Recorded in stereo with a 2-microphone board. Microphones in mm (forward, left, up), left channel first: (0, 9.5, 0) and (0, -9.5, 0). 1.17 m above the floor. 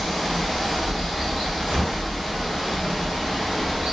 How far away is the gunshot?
About 1.9 m.